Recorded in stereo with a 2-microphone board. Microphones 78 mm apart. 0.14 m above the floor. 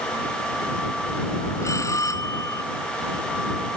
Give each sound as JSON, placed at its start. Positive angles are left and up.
{"t": 1.6, "sound": "a bell", "side_deg": 40}